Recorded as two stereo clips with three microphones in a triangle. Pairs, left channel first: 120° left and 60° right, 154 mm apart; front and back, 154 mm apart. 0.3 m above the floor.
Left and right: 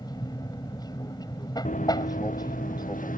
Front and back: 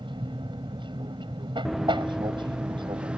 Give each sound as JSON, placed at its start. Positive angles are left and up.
{"t": 0.0, "sound": "an aircraft", "azimuth_deg": 160}
{"t": 1.6, "sound": "running footsteps", "azimuth_deg": 90}